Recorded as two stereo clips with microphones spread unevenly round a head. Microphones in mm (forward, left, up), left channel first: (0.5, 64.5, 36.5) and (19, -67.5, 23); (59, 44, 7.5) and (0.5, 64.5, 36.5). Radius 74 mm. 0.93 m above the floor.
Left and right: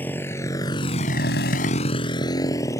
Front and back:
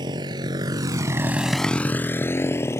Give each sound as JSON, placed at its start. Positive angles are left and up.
{"t": 0.0, "sound": "a motorcycle", "azimuth_deg": 175}